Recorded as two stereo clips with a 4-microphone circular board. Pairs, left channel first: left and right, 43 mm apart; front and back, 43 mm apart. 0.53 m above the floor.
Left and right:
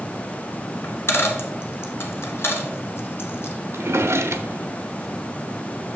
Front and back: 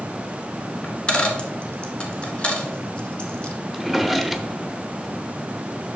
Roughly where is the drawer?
Right.